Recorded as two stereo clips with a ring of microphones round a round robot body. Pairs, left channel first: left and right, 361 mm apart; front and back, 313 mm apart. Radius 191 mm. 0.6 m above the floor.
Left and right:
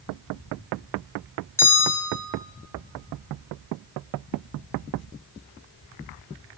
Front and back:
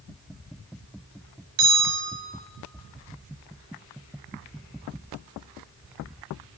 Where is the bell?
175° left, 2.0 m.